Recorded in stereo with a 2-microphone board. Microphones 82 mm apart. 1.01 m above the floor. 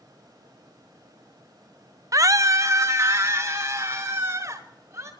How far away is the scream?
About 0.5 m.